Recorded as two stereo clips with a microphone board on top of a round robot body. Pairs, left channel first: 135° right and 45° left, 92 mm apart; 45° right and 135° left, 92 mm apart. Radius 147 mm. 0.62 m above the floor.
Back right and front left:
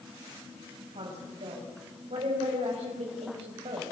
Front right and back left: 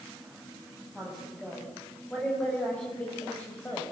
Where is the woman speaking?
40° left, 6.5 m; by 3.8 s 25° left, 5 m.